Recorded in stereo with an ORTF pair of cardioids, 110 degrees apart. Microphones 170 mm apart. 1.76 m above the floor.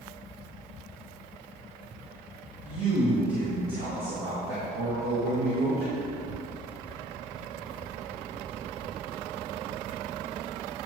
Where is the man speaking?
45° right, 1.9 m; by 6.1 s 70° right, 3.5 m.